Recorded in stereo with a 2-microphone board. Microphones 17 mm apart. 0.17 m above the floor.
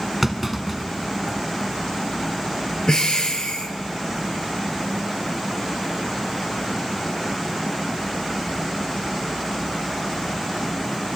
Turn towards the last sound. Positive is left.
turn(degrees=55)  # may be behind; listen again after turning